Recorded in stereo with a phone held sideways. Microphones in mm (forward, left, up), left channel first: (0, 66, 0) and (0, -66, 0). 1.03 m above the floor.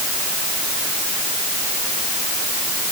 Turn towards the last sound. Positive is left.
No sound to turn to.